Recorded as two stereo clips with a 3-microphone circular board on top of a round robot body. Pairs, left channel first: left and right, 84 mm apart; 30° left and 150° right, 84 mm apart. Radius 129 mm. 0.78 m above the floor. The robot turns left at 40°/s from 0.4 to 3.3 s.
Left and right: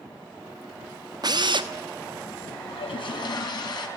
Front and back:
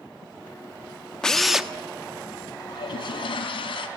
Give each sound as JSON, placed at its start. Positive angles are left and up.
{"t": 1.2, "sound": "a drill", "azimuth_deg": -50, "distance_m": 1.3}
{"t": 2.7, "sound": "a toilet flushing", "azimuth_deg": 75, "distance_m": 3.5}